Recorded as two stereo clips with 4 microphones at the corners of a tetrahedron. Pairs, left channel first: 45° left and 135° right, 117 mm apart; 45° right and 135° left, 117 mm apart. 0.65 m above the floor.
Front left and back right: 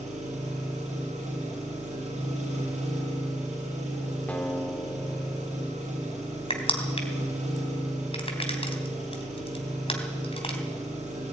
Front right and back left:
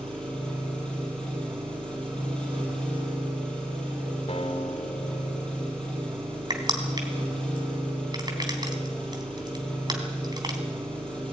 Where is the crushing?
80° left, 3 m.